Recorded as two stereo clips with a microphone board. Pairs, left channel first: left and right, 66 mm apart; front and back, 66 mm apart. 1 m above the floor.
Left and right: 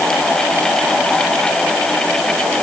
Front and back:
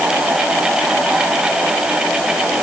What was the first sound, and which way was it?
Only background noise.